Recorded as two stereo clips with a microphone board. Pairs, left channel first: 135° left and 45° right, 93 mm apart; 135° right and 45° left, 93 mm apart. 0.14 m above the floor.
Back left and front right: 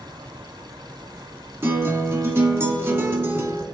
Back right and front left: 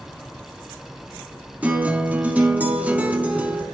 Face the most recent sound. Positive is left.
turn(degrees=-15)